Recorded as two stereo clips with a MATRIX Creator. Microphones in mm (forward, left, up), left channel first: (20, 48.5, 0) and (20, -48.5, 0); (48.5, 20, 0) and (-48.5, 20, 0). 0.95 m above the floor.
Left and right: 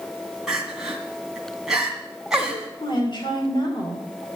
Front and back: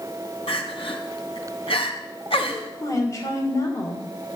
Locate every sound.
0.5 s crying: 5° right, 3 m
2.8 s a woman speaking: 55° left, 3 m